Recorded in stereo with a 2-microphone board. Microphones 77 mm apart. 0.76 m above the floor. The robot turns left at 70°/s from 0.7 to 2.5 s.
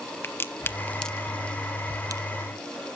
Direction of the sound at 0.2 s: 30° left (ahead or behind).